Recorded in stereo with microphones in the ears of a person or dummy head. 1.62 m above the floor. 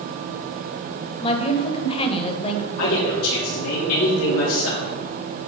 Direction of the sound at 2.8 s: 75° left (ahead or behind).